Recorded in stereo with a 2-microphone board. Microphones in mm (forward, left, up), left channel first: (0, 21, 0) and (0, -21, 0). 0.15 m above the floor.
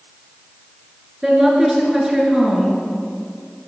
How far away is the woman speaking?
About 1.9 m.